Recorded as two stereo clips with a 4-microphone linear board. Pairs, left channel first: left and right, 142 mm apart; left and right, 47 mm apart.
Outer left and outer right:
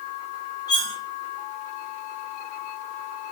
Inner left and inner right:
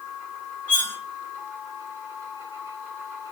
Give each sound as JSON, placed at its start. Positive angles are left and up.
{"t": 0.7, "sound": "cutlery clinking", "side_deg": 30, "distance_m": 1.6}